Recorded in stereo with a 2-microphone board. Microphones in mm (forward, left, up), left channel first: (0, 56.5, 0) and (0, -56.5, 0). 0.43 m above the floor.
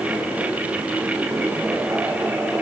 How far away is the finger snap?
I don't hear a finger snap.